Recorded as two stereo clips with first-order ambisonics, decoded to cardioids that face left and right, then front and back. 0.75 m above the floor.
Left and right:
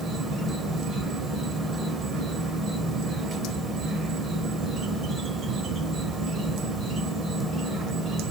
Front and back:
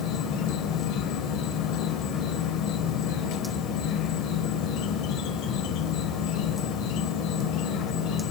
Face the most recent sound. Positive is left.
turn(degrees=-25)